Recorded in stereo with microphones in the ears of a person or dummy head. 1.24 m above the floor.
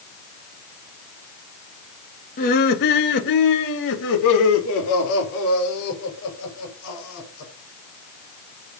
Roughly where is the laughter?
Left.